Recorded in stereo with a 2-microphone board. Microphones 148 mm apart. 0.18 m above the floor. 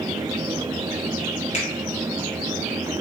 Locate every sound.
1.5 s a finger snap: 50° left (ahead or behind), 1.7 m